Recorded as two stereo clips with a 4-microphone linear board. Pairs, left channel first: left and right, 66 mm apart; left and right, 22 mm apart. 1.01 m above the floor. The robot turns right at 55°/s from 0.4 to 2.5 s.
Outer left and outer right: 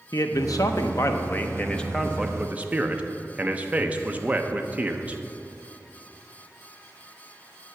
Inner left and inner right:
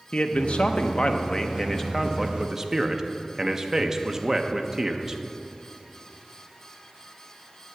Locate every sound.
0.1 s a man speaking: 90° left, 0.7 m; by 5.2 s 155° right, 0.7 m